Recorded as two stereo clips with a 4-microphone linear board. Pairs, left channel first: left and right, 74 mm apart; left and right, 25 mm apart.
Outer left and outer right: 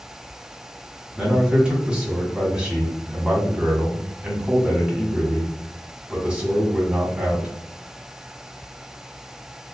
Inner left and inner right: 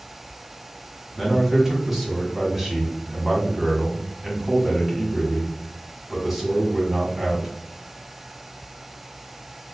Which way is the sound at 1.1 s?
15° right (ahead or behind).